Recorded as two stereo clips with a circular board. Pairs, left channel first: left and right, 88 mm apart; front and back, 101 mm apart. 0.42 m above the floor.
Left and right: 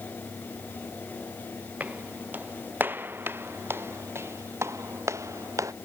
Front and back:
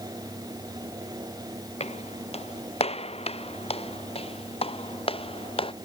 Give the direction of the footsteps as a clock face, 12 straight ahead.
1 o'clock.